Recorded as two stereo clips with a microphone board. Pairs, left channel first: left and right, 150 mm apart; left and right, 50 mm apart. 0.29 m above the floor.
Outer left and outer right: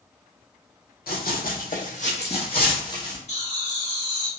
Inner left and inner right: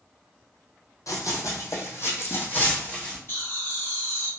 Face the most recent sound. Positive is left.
turn(degrees=45)  # may be behind; listen again after turning